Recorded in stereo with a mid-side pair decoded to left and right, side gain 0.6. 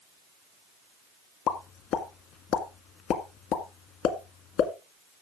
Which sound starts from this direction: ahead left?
A pop, at 1.5 s.